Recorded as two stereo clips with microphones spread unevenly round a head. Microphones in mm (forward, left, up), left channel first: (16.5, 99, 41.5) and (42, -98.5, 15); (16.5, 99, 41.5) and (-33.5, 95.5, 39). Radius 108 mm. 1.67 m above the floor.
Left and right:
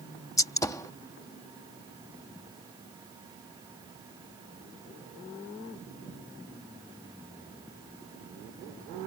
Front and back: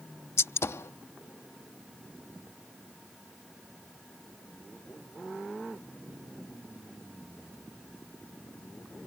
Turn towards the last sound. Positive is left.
turn(degrees=25)